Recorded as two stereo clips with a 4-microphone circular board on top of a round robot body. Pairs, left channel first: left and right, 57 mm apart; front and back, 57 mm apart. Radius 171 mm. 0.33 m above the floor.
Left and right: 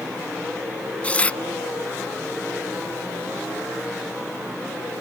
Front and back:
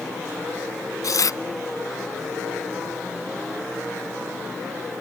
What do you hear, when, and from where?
1.0 s tearing paper: 20° left